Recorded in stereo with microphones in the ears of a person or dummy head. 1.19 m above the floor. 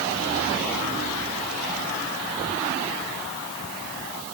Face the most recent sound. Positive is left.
No sound to turn to.